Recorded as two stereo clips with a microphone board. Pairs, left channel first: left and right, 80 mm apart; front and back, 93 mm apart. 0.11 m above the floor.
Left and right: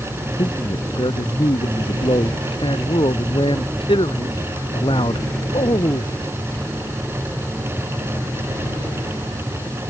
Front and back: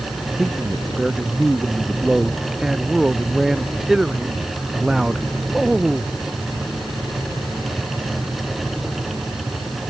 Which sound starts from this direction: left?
A man speaking, at 0.4 s.